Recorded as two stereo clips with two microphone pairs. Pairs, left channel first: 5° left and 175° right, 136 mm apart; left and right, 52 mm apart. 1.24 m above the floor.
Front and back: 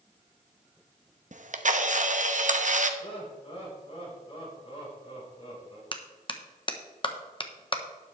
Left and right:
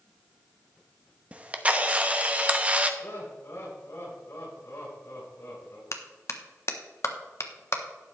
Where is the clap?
55° left, 1.0 m.